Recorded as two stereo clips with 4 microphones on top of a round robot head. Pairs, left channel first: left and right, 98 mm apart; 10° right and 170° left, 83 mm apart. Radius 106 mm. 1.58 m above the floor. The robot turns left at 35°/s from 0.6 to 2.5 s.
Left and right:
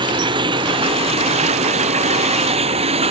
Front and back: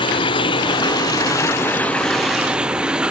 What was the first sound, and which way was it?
Running water, 45° right.